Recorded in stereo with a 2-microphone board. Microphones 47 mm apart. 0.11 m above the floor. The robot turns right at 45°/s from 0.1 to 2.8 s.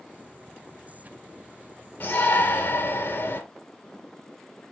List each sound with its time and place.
2.0 s a shout: 60° left, 2 m; by 3.4 s 95° left, 2 m